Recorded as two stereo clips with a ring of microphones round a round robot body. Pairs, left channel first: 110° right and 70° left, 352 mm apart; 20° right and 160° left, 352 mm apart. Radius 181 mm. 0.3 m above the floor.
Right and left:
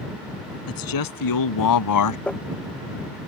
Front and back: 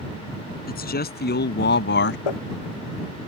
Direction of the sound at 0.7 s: 85° right.